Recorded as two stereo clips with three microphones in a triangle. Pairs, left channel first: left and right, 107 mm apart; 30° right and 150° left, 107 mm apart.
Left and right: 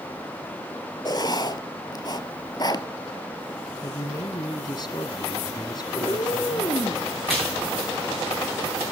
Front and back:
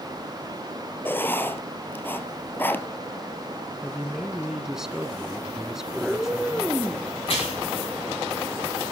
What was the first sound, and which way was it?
Writing, 40° left.